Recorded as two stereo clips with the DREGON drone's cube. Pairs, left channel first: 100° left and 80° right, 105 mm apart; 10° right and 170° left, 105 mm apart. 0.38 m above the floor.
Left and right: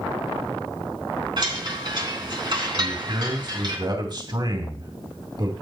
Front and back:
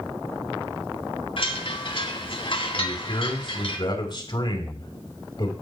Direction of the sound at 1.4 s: 40° right.